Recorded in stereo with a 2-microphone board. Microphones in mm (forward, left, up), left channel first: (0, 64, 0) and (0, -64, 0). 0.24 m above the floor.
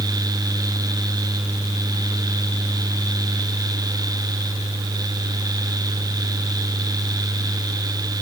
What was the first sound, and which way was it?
Only background noise.